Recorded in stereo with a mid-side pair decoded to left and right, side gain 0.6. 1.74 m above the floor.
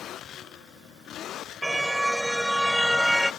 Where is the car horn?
5° right; by 3.3 s 5° left.